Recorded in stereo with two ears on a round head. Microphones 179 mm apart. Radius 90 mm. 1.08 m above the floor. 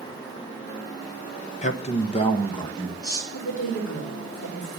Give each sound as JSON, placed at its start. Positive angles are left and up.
{"t": 1.6, "sound": "a man speaking", "side_deg": 35, "distance_m": 0.9}
{"t": 3.3, "sound": "a woman speaking", "side_deg": 75, "distance_m": 4.0}